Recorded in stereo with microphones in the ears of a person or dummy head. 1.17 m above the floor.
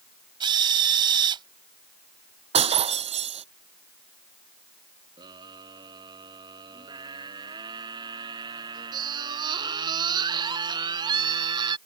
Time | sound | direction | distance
0.4 | a drill | 30° right (ahead or behind) | ?
2.5 | breaking glass | 30° right (ahead or behind) | ?
5.2 | a scream | 25° right (ahead or behind) | ?